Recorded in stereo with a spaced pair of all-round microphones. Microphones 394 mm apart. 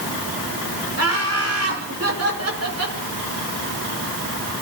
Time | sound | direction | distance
1.0 | laughter | 40° right (ahead or behind) | 6 m